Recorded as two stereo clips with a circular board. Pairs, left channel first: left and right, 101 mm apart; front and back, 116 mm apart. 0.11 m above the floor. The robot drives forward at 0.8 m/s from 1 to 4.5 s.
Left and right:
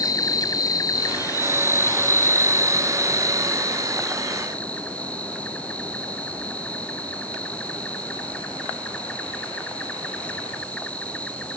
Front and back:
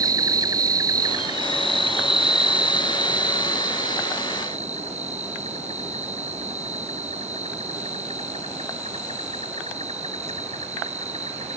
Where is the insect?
130° left; by 11.6 s 165° left.